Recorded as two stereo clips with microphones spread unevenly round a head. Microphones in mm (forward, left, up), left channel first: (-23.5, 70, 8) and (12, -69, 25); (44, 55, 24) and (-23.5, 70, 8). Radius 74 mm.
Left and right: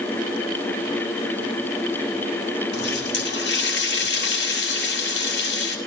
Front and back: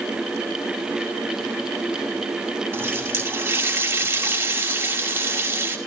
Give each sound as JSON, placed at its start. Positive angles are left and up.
{"t": 2.7, "sound": "a running tap", "azimuth_deg": 115, "distance_m": 6.0}